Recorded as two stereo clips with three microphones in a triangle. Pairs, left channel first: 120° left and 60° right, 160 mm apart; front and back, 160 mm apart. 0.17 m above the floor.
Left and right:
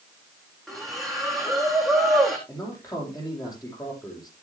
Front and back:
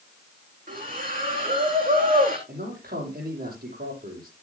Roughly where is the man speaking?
Behind.